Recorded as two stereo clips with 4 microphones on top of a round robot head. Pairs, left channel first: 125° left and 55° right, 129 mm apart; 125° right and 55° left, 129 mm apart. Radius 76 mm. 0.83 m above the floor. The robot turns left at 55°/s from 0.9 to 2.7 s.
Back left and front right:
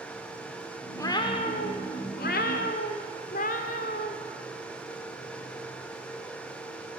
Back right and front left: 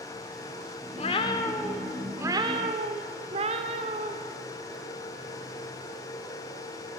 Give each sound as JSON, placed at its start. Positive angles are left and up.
{"t": 1.0, "sound": "a cat meowing", "azimuth_deg": -165, "distance_m": 1.4}